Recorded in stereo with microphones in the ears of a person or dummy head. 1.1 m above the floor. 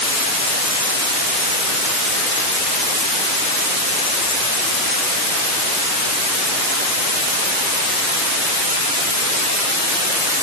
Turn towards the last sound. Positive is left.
No sound to turn to.